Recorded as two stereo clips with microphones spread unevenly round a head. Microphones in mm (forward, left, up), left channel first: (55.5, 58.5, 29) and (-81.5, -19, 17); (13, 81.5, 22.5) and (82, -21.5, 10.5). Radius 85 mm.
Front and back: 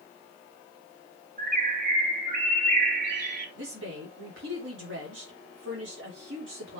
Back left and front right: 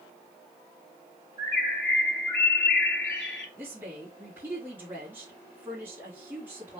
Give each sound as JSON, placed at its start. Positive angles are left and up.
{"t": 1.4, "sound": "a bird", "azimuth_deg": 170, "distance_m": 2.5}
{"t": 3.6, "sound": "a woman speaking", "azimuth_deg": -135, "distance_m": 3.5}